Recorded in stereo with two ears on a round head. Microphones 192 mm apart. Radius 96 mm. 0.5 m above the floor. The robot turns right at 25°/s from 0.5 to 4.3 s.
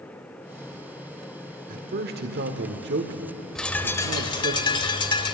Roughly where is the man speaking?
Right.